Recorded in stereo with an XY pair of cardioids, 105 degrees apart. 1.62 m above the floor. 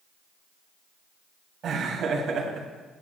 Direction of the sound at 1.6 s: 60° right.